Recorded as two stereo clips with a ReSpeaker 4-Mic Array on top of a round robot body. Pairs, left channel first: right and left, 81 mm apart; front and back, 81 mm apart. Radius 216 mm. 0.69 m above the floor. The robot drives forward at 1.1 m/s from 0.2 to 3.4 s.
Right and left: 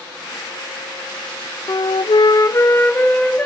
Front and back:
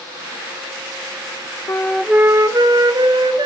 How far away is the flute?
About 0.7 m.